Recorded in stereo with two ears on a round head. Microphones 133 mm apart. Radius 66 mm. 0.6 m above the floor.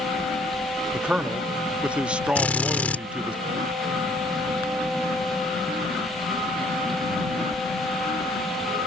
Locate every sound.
0.9 s a man speaking: 5° right (ahead or behind)
2.4 s a drill: 10° left (ahead or behind)